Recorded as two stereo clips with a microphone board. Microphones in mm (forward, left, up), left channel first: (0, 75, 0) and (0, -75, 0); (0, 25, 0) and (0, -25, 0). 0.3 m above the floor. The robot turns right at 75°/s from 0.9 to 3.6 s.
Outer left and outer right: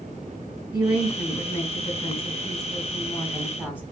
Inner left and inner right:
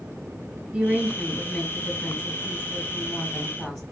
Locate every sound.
0.7 s a woman speaking: 15° right, 1.2 m; by 3.8 s 170° right, 1.2 m